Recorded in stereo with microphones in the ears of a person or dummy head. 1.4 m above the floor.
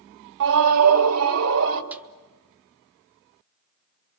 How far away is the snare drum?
About 0.5 m.